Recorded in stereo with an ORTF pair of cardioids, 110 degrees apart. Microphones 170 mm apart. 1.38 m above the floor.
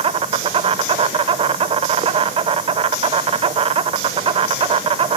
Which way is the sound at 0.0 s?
35° right.